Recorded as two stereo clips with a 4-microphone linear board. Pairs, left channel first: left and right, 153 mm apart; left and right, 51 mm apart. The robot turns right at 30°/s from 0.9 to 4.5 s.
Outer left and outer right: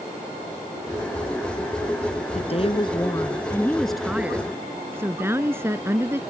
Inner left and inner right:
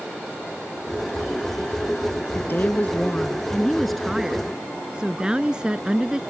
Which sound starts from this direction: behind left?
A woman speaking, at 2.4 s.